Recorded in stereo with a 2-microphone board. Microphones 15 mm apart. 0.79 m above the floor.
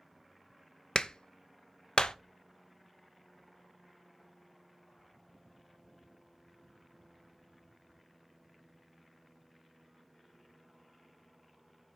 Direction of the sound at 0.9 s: 65° left (ahead or behind).